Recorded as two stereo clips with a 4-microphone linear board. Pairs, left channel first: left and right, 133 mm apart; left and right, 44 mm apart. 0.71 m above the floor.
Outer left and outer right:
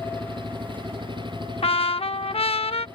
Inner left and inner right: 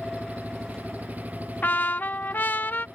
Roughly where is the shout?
No shout in this recording.